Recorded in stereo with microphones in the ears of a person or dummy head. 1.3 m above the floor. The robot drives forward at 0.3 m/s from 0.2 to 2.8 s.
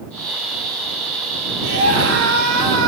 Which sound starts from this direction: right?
A scream, at 1.6 s.